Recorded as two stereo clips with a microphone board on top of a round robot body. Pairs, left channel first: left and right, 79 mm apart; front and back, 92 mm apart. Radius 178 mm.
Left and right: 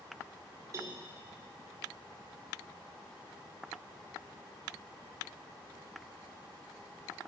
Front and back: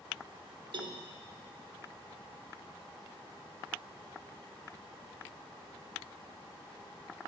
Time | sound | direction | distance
0.7 | a cowbell | 145° right | 0.6 m